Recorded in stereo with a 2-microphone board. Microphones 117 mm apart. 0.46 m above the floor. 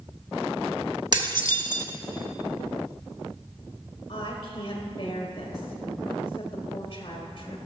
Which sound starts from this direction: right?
Dishes clattering, at 1.1 s.